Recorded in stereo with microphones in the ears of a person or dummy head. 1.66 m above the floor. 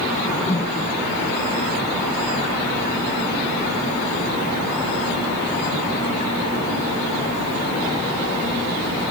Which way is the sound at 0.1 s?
15° left (ahead or behind).